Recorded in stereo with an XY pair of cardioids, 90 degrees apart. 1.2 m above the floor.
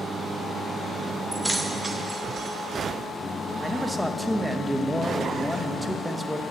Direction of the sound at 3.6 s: Straight ahead.